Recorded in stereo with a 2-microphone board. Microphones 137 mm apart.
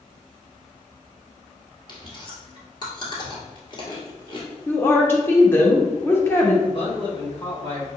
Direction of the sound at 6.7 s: 45° left (ahead or behind).